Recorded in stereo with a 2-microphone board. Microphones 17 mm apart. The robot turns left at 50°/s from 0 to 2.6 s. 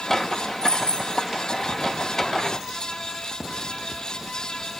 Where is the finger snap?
No finger snap in this recording.